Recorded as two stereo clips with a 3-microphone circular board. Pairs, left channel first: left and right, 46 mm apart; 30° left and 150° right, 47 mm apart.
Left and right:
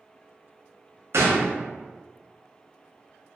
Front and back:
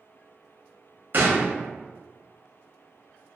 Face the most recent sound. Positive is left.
turn(degrees=-110)